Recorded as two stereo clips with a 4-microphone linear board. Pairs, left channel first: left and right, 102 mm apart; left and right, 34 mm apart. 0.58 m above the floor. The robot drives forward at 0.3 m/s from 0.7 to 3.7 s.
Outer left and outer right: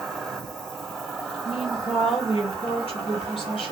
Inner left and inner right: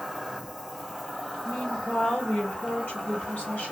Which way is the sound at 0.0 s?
Centre (ahead or behind).